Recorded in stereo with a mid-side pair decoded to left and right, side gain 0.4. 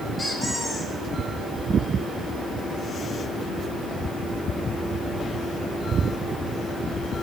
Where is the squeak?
30° left, 6 m.